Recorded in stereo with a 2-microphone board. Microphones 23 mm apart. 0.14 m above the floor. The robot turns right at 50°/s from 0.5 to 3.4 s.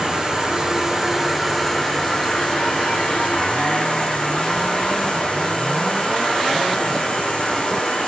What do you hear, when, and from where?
0.0 s an insect: 40° right, 1.7 m; by 8.1 s 105° left, 1.7 m